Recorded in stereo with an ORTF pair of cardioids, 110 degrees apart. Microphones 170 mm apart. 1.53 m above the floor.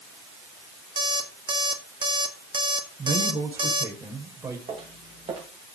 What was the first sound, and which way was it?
An alarm clock, 30° right.